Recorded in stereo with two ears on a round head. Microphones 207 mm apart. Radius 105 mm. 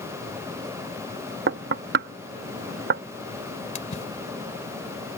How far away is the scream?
No scream in this recording.